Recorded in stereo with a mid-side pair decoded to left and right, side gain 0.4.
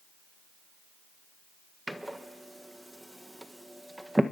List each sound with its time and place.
1.9 s a door slam: 10° right, 1.6 m